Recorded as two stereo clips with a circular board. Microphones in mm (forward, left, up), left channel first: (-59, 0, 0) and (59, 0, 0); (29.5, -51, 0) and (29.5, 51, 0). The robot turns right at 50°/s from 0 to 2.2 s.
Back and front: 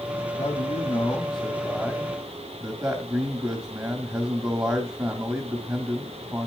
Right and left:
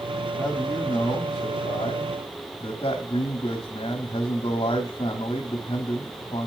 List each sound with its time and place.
0.4 s a man speaking: 155° right, 1.7 m; by 6.5 s 65° right, 1.7 m